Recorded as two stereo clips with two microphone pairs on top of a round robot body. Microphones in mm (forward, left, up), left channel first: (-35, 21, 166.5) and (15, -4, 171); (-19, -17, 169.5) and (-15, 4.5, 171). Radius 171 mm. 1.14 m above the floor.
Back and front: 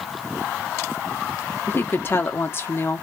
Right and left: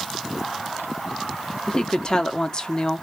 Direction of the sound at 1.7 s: 160° right.